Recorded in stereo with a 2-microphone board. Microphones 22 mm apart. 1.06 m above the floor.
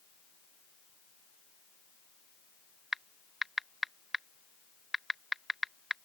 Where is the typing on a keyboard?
10° right (ahead or behind).